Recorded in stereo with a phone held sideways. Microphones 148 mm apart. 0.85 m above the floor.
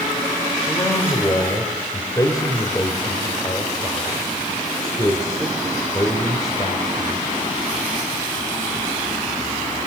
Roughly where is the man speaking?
Left.